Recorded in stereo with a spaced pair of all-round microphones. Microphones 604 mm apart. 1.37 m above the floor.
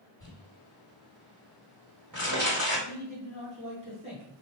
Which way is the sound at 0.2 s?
30° right (ahead or behind).